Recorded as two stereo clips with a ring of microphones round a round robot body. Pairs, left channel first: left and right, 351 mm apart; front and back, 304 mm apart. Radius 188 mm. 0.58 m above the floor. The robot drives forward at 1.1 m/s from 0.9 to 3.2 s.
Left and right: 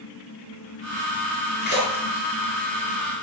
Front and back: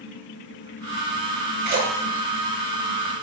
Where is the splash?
150° left, 8.5 m; by 2.2 s 155° left, 9 m.